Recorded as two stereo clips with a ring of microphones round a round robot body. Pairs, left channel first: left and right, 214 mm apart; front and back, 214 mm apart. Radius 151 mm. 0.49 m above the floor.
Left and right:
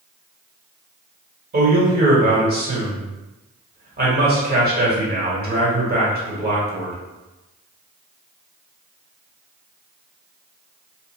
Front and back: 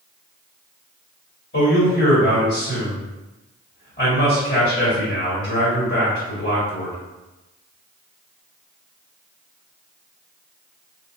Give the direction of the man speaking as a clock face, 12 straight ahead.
2 o'clock.